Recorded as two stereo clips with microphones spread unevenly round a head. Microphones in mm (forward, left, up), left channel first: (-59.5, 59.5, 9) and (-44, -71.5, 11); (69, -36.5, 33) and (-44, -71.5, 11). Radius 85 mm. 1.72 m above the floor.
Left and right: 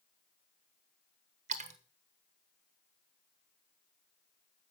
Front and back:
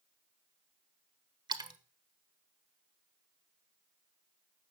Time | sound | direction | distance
1.5 | a splash | 110° right | 1.3 m